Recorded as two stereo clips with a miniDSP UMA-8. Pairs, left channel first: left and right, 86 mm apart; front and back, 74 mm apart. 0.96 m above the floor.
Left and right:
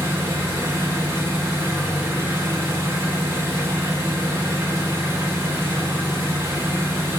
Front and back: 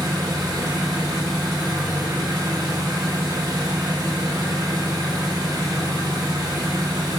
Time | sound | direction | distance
0.0 | an engine running | 150° right | 1.6 m